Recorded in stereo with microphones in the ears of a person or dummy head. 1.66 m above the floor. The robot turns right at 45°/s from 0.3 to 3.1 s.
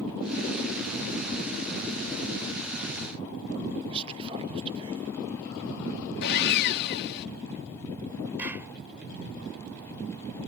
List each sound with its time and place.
3.9 s whispering: 30° right (ahead or behind)
6.2 s sawing: 55° left (ahead or behind)
8.4 s a clap: 15° right (ahead or behind)